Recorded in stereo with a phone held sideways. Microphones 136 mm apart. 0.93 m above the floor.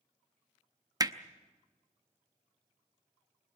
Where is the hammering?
30° right (ahead or behind), 0.6 m.